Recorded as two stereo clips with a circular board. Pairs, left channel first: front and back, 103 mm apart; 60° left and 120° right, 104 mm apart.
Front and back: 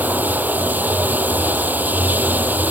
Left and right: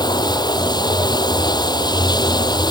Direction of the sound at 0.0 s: 105° left.